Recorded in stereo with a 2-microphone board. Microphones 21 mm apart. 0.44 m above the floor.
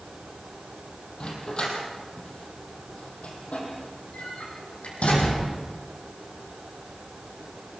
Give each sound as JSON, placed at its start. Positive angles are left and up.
{"t": 1.2, "sound": "a dog barking", "side_deg": 40, "distance_m": 6.0}